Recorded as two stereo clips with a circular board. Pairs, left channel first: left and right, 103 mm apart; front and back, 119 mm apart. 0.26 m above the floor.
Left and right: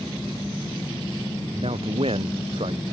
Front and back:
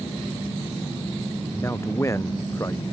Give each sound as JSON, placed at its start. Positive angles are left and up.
{"t": 1.5, "sound": "a man speaking", "azimuth_deg": -65}